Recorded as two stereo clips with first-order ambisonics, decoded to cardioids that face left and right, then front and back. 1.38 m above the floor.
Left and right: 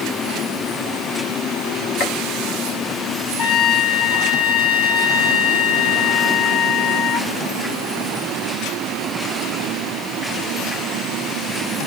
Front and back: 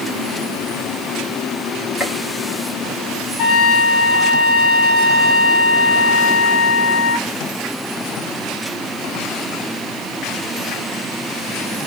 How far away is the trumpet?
About 1.6 m.